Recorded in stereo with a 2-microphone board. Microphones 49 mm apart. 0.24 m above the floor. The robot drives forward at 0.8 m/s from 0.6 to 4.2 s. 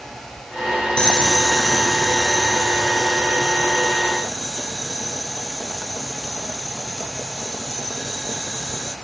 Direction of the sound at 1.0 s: 20° left (ahead or behind).